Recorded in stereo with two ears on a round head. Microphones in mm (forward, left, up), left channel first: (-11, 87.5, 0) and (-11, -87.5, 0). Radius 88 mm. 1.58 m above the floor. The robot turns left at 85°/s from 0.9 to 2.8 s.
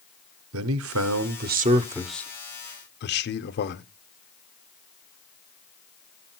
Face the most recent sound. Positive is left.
turn(degrees=120)